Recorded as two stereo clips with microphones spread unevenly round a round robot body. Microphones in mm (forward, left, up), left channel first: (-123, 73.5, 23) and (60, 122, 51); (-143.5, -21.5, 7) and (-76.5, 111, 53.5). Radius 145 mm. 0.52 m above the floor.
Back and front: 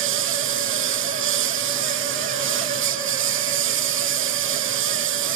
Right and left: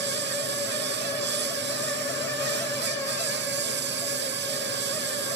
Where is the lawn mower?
25° left.